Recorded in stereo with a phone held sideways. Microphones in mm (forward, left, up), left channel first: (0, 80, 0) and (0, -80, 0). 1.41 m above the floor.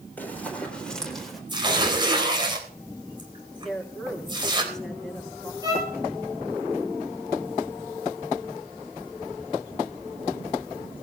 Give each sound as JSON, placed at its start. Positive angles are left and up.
{"t": 0.2, "sound": "running footsteps", "side_deg": 10, "distance_m": 4.5}
{"t": 1.5, "sound": "tearing paper", "side_deg": -30, "distance_m": 3.5}
{"t": 3.6, "sound": "a woman speaking", "side_deg": 5, "distance_m": 3.5}
{"t": 5.6, "sound": "a violin", "side_deg": -25, "distance_m": 8.0}